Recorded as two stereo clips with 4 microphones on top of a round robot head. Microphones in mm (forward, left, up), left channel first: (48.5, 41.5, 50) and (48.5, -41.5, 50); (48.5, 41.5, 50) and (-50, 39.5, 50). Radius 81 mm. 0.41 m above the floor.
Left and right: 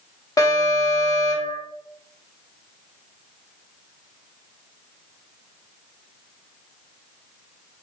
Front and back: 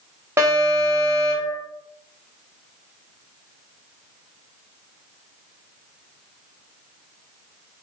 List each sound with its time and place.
0.4 s an alarm: 125° left, 0.9 m